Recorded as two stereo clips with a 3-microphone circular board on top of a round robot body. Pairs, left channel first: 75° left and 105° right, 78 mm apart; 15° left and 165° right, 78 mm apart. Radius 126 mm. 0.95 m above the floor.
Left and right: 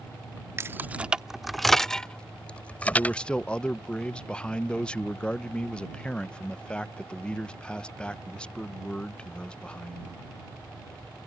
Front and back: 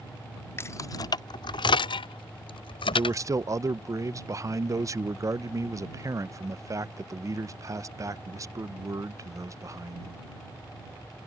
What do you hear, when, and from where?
0.6 s keys jangling: 50° right; by 3.2 s 5° left
2.9 s a man speaking: 150° left